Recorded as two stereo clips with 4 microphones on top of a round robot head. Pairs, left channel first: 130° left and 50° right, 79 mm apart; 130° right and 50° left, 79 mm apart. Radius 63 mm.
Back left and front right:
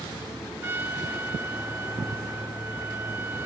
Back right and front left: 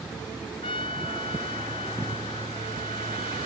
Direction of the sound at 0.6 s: 110° right.